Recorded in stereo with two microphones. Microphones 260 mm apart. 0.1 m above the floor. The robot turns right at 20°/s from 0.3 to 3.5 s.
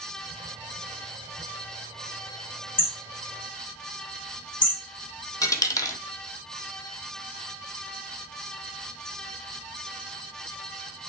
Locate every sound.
2.8 s hammering: 30° left (ahead or behind), 5 m; by 4.8 s 45° left (ahead or behind), 5 m
5.4 s a dropped coin: 10° left (ahead or behind), 0.6 m